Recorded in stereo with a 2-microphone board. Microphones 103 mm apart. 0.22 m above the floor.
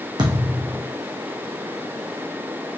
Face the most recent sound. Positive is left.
turn(degrees=-45)  # may be behind; listen again after turning